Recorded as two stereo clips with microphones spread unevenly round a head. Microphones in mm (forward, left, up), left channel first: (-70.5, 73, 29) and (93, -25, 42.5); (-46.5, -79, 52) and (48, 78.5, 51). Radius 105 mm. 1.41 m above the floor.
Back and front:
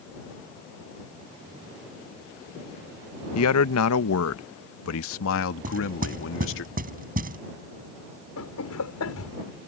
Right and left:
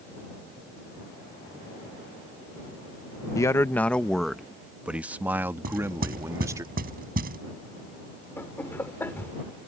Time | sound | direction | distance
3.4 | a man speaking | 165° left | ?
5.6 | knocking | 15° left | ?
8.4 | laughter | 160° left | ?